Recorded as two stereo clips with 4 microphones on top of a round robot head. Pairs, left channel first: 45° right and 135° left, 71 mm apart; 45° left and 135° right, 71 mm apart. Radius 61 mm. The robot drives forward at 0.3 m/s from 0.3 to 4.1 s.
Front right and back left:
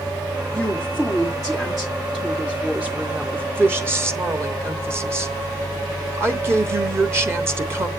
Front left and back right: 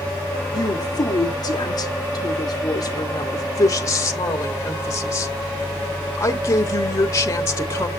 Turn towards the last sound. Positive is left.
turn(degrees=85)